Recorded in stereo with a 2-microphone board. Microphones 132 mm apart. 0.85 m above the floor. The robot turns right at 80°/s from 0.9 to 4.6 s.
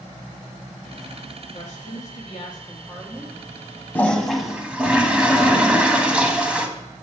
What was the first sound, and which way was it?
A woman speaking, 65° left.